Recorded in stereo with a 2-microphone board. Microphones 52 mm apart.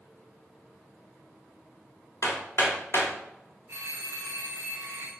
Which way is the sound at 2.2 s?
50° left (ahead or behind).